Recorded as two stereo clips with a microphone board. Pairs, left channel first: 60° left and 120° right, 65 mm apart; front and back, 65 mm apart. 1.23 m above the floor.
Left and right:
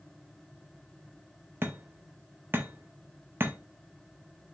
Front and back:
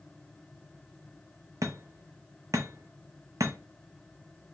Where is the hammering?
170° right, 0.6 m.